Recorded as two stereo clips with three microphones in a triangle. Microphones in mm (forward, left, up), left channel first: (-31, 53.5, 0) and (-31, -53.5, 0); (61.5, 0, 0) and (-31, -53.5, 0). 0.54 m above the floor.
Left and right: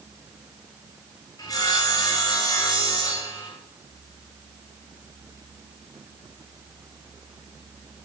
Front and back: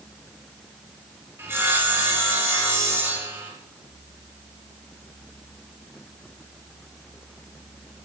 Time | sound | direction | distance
1.4 | sawing | 145° left | 9.5 m